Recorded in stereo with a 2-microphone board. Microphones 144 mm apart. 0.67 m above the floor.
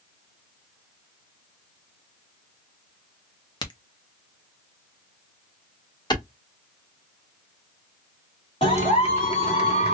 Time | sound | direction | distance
3.6 | a crack | 30° left (ahead or behind) | 0.9 m
6.1 | a clap | 30° left (ahead or behind) | 1.6 m
8.6 | a clap | 45° left (ahead or behind) | 2 m